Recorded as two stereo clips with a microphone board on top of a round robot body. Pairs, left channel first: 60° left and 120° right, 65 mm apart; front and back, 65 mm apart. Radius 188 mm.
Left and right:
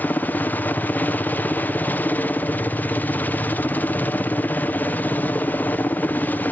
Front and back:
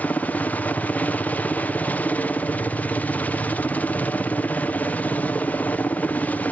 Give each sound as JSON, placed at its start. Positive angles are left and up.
{"t": 0.0, "sound": "a helicopter", "azimuth_deg": 35}